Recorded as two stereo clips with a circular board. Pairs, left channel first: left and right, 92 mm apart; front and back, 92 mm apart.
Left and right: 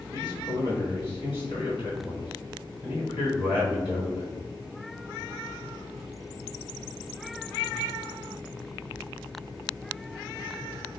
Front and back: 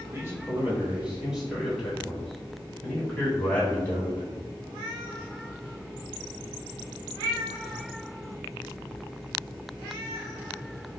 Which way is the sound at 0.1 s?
120° left.